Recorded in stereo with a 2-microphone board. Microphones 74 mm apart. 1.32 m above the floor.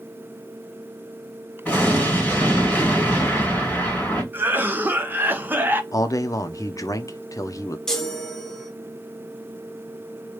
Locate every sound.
1.6 s an explosion: 15° left (ahead or behind), 2.5 m
4.3 s a cough: 25° right (ahead or behind), 0.9 m
5.9 s a man speaking: 45° left (ahead or behind), 0.6 m
7.9 s a chime: 5° left (ahead or behind), 1.1 m